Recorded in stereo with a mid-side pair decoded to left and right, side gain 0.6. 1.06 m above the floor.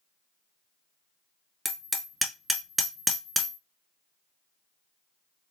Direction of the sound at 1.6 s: 5° right.